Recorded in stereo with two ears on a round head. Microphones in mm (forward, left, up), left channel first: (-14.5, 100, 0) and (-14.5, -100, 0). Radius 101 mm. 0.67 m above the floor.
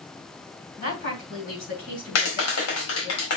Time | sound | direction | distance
0.8 | a woman speaking | 40° left (ahead or behind) | 7 m
2.1 | a clap | 70° left (ahead or behind) | 4 m